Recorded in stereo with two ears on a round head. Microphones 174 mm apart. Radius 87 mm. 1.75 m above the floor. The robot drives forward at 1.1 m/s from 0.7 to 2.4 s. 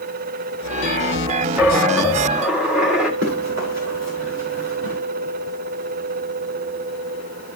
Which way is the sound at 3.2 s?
75° right (ahead or behind).